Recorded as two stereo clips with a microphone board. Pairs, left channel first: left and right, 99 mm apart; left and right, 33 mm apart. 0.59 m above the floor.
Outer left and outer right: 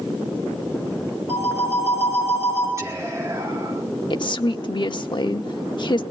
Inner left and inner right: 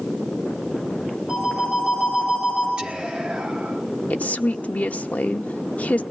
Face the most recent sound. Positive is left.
turn(degrees=50)  # may be behind; listen again after turning